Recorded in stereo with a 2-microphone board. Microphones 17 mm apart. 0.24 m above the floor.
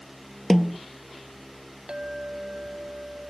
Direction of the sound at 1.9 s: 45° right (ahead or behind).